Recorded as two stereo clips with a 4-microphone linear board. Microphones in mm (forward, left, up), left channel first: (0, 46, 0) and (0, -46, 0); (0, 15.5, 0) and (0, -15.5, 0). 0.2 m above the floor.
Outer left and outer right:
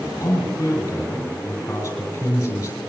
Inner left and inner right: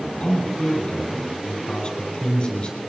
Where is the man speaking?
30° left (ahead or behind), 7 m.